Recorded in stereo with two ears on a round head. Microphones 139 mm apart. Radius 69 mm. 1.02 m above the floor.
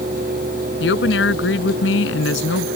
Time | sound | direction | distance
0.8 | a woman speaking | 75° left (ahead or behind) | ?